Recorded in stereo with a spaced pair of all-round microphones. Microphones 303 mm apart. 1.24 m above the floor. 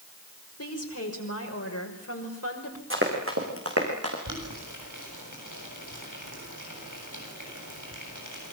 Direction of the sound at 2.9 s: 40° right (ahead or behind).